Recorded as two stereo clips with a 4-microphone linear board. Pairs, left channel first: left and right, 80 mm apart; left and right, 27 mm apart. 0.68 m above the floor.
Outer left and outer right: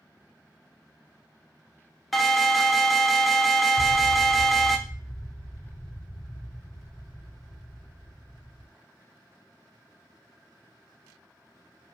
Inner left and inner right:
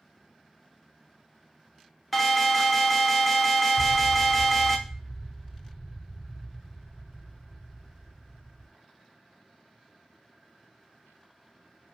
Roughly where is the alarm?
Centre.